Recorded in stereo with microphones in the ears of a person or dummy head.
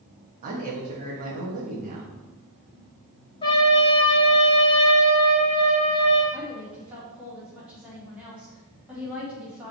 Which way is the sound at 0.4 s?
45° right (ahead or behind).